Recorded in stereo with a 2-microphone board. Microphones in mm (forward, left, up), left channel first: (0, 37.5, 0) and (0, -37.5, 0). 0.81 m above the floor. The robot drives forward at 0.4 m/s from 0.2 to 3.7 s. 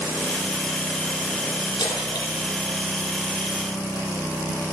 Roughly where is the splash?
Left.